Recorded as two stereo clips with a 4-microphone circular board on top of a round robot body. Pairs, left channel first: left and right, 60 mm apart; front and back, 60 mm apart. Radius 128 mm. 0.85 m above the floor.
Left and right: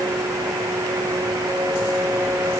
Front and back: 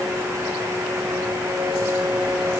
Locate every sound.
Only background noise.